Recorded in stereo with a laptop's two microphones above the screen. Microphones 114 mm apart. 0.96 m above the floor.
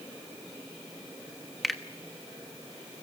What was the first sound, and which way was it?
A finger snap, centre (ahead or behind).